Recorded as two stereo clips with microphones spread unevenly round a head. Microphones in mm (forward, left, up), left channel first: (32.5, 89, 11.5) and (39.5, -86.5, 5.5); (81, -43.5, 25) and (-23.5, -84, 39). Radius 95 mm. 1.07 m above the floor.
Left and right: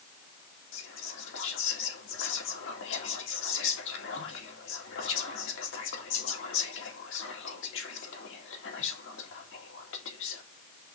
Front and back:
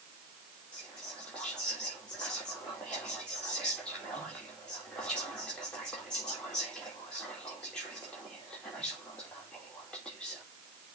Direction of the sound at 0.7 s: 100° left.